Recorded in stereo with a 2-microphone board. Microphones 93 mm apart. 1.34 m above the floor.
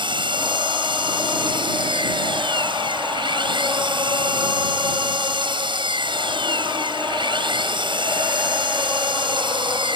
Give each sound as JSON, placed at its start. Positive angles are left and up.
{"t": 0.0, "sound": "an engine running", "side_deg": -60}